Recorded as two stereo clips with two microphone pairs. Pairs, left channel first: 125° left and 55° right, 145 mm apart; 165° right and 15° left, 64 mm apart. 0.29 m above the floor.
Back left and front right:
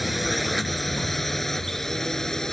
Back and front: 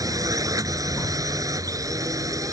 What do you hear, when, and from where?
0.0 s a drone: 35° left; by 2.5 s 40° left